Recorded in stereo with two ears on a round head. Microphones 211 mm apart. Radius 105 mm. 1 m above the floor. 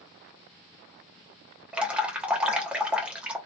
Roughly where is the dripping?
Centre.